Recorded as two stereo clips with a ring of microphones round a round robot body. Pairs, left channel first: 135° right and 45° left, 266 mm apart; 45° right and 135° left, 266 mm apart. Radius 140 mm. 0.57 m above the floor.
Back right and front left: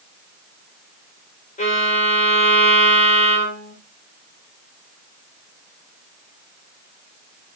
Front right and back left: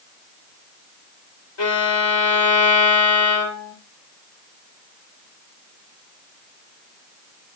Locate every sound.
1.6 s a violin: 75° right, 2 m